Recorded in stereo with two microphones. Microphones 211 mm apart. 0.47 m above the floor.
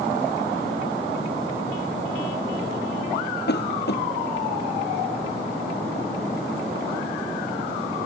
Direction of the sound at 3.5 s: 55° left (ahead or behind).